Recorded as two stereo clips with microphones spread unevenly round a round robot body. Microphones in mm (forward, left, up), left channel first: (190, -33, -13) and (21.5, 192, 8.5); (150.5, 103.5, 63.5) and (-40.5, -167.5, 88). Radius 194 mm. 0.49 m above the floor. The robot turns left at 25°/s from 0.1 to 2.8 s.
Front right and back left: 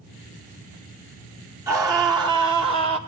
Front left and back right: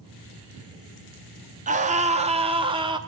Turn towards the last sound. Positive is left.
turn(degrees=175)